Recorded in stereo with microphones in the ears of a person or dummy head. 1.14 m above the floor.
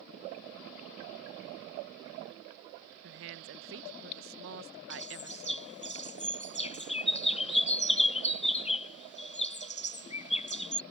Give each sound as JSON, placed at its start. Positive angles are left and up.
{"t": 3.0, "sound": "a woman speaking", "side_deg": -60}
{"t": 4.9, "sound": "a bird", "side_deg": 35}